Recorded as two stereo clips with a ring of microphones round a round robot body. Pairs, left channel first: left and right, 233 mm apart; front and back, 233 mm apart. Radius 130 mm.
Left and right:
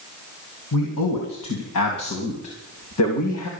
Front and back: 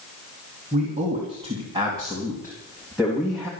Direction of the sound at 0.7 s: 115° left.